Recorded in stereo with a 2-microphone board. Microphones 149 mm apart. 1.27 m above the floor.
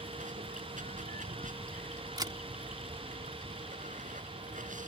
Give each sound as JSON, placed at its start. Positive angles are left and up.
{"t": 0.0, "sound": "running water", "side_deg": -65}
{"t": 2.2, "sound": "a camera shutter", "side_deg": -30}